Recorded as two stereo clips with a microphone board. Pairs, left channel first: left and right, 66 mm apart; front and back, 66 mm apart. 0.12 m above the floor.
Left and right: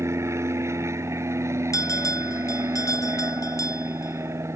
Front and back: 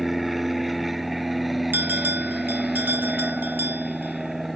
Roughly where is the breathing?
No breathing in this recording.